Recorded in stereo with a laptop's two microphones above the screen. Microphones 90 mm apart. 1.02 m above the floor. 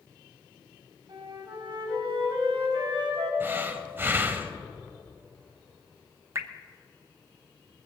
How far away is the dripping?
About 0.6 m.